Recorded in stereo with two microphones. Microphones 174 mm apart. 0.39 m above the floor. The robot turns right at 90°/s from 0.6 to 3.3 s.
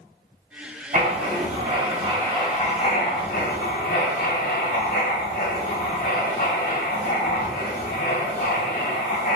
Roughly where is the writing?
Right.